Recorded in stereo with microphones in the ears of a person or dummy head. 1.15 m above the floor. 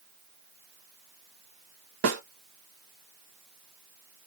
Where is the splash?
No splash in this recording.